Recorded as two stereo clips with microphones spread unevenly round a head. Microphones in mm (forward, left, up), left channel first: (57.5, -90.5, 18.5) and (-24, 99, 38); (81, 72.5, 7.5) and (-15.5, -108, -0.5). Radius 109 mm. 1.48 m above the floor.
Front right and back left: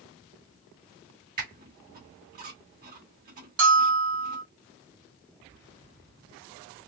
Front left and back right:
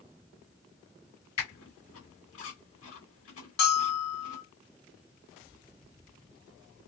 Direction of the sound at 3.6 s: 105° left.